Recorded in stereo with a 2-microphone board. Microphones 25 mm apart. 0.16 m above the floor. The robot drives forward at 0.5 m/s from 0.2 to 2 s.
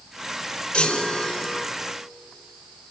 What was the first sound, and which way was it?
A chime, 35° left (ahead or behind).